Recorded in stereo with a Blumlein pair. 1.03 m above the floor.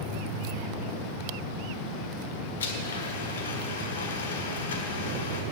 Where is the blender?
65° left, 1.5 m.